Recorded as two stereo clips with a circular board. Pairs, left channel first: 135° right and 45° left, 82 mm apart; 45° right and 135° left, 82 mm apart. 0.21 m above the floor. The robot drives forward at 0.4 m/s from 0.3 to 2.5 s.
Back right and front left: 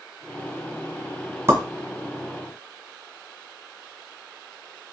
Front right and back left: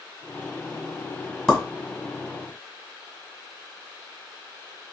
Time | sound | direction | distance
1.5 | a pop | 35° left | 1.5 m